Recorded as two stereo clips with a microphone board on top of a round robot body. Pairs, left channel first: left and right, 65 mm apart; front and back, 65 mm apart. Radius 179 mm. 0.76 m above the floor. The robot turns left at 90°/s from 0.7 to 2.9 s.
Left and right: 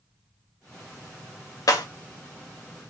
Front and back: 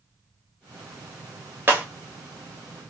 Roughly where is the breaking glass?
Behind left.